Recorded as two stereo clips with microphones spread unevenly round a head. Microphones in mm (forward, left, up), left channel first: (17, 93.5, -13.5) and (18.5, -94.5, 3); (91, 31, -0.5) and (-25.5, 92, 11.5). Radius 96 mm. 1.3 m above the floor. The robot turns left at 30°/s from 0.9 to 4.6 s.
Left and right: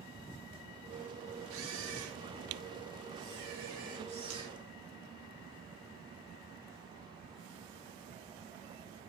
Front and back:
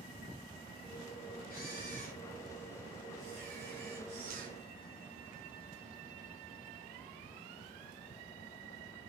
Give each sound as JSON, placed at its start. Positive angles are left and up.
{"t": 1.5, "sound": "a camera shutter", "azimuth_deg": -70, "distance_m": 3.0}